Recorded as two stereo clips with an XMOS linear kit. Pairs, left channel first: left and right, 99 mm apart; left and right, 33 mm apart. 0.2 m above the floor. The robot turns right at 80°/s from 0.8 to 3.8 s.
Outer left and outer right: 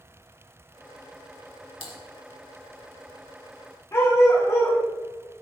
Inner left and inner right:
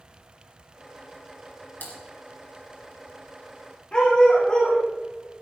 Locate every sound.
1.8 s typing on a keyboard: 65° left (ahead or behind), 2.5 m; by 2.0 s 60° left (ahead or behind), 2.5 m
3.9 s a dog barking: 25° left (ahead or behind), 6 m